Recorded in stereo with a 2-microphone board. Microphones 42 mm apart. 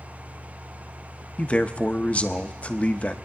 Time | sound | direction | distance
1.4 | a man speaking | 30° left (ahead or behind) | 0.7 m